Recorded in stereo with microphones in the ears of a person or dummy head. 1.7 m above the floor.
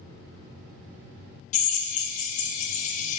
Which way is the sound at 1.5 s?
50° left (ahead or behind).